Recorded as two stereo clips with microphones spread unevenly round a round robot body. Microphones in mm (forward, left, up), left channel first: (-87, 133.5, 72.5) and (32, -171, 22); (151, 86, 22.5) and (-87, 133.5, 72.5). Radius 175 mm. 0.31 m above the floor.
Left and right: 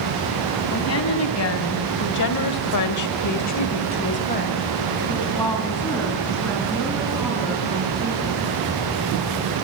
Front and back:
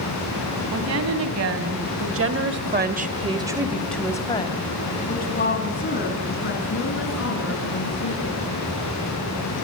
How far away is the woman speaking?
About 3.5 m.